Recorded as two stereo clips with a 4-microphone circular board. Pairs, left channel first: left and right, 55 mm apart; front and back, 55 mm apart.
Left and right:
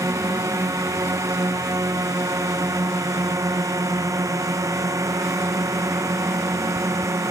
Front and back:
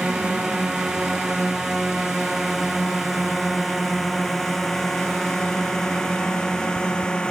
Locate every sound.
0.0 s a drone: 100° right; by 7.3 s 75° right